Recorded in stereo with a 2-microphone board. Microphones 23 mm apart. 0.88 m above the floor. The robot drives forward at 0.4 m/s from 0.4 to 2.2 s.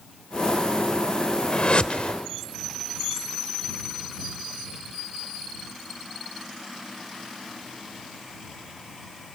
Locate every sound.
1.5 s a whoosh: 50° left (ahead or behind), 1.1 m; by 2.1 s 60° left (ahead or behind), 1.0 m